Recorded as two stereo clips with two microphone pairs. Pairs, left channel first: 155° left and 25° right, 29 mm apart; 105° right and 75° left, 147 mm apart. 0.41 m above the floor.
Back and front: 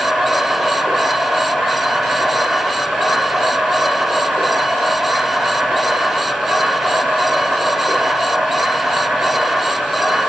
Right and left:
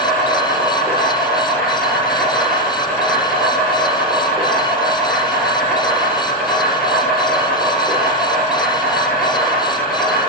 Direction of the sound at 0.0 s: 15° right.